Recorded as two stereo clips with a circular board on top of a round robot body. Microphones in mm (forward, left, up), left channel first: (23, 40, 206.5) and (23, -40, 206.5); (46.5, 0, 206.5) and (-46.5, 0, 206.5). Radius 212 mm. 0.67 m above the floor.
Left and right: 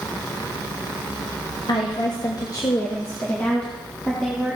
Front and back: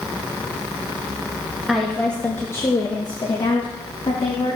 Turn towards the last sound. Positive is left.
turn(degrees=0)